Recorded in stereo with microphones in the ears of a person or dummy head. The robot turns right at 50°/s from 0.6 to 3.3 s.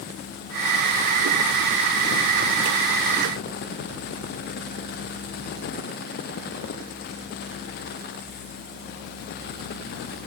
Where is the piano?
I don't hear a piano.